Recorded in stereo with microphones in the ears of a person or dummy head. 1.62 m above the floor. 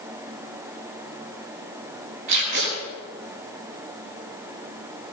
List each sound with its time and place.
2.3 s tape being pulled: 65° right (ahead or behind), 6 m